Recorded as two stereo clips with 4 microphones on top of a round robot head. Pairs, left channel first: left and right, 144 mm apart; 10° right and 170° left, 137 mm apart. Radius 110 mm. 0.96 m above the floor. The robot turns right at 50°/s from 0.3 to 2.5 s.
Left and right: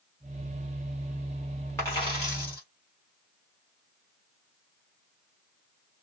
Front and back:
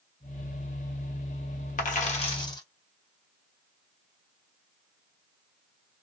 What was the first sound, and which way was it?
A dropped coin, 10° left.